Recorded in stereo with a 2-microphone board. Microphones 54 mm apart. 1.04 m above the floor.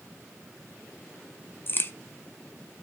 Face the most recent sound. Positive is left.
turn(degrees=40)  # may be behind; listen again after turning